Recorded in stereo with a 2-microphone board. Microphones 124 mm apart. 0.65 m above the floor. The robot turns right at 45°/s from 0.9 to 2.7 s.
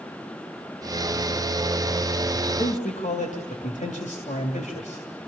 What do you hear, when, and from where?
2.5 s a man speaking: 80° left, 2.5 m; by 5.1 s 75° left (ahead or behind), 2.5 m